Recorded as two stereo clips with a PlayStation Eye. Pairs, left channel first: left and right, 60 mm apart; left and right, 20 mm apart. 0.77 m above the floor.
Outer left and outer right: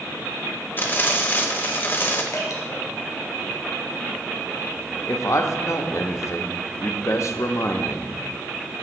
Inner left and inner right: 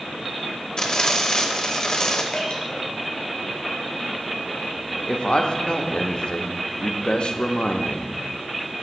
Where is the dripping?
60° left (ahead or behind), 3 m.